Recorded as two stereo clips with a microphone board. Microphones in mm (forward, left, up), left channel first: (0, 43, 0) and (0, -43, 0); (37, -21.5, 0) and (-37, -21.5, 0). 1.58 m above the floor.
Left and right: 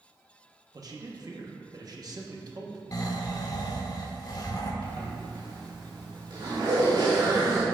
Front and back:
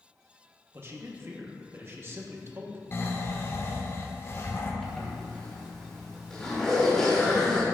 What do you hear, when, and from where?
0.7 s a man speaking: 125° right, 1.0 m
2.9 s snoring: 50° left, 0.9 m
4.8 s a zipper: 80° right, 2 m